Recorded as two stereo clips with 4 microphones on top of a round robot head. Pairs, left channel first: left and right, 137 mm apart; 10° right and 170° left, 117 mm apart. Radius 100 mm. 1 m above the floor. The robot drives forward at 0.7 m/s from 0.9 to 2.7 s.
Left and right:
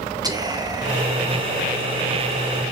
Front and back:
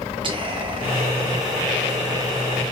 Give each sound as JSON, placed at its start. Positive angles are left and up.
{"t": 0.2, "sound": "whispering", "azimuth_deg": -150, "distance_m": 1.0}